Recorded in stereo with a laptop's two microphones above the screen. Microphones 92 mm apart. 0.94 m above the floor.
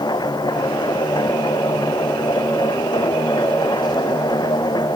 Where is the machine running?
50° left (ahead or behind).